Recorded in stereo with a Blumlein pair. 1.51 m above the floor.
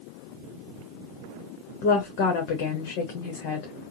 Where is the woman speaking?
45° left, 1.0 m.